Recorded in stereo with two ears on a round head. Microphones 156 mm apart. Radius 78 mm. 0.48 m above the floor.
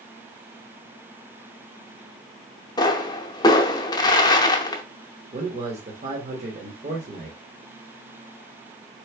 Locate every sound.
2.8 s a pop: 20° left (ahead or behind), 0.7 m
5.3 s a man speaking: 40° right (ahead or behind), 1.1 m